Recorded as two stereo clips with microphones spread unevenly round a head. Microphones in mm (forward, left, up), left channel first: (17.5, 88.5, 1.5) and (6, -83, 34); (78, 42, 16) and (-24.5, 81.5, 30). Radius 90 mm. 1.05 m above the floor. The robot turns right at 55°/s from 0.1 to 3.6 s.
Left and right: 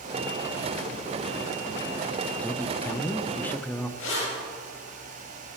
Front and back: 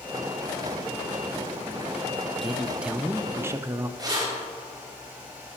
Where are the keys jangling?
105° left, 4 m.